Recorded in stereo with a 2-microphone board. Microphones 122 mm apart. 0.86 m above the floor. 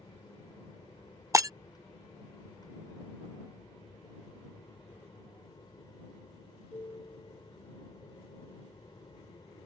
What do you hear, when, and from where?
0.0 s an aircraft: 30° left (ahead or behind); by 9.7 s 35° left (ahead or behind)
1.3 s breaking glass: 25° right (ahead or behind)